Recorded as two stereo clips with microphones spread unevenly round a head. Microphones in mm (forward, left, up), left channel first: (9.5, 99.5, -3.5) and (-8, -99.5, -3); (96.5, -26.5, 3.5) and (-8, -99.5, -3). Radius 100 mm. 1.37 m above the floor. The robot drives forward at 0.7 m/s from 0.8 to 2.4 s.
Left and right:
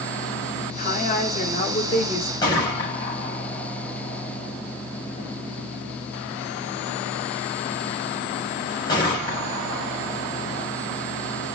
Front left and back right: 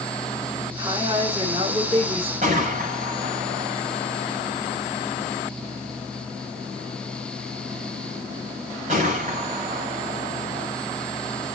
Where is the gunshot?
155° left, 7.5 m.